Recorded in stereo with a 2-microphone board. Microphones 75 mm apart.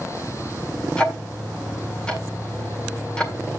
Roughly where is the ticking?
Centre.